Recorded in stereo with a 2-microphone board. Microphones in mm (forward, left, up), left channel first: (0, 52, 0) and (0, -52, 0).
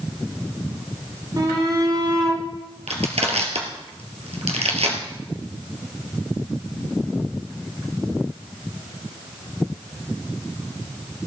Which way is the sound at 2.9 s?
80° right.